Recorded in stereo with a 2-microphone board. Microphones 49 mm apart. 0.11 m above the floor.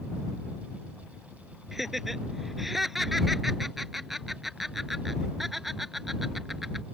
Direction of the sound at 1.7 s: 5° right (ahead or behind).